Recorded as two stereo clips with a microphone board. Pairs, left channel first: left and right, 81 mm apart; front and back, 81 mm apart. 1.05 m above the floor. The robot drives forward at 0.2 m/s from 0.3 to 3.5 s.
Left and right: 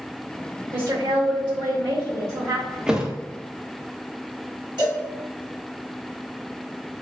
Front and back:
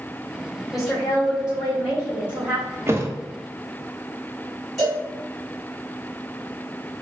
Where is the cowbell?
85° right, 1.9 m.